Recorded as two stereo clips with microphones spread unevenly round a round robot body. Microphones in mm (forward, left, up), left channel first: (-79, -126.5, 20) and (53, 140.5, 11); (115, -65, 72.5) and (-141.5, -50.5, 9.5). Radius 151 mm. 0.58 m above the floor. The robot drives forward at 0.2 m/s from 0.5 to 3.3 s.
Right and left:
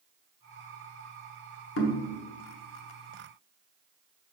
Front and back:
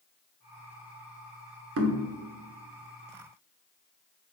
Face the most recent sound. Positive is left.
turn(degrees=-165)